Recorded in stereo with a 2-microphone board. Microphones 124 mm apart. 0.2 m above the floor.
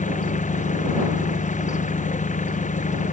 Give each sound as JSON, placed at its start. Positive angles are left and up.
{"t": 0.0, "sound": "an engine running", "side_deg": 80}